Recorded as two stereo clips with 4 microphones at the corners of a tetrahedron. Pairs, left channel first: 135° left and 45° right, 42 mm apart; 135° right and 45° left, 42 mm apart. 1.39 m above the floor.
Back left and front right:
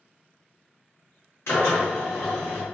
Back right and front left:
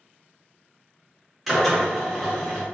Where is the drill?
140° left, 1.6 m.